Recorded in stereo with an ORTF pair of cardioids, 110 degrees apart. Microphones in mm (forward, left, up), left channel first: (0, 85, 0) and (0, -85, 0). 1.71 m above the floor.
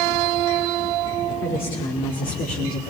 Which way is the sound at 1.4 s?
60° left.